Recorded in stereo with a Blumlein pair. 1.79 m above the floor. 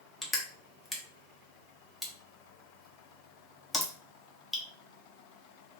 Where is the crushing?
10° left, 0.8 m.